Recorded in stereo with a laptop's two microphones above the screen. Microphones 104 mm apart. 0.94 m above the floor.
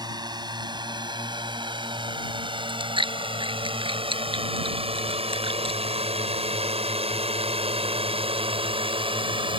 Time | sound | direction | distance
0.0 | a drone | 45° right (ahead or behind) | ?
2.6 | chewing | 55° right (ahead or behind) | ?